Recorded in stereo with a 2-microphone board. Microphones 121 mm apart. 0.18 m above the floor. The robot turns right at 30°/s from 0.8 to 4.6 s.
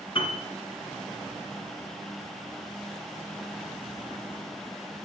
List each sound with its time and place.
0.1 s a piano: 50° left (ahead or behind), 1.6 m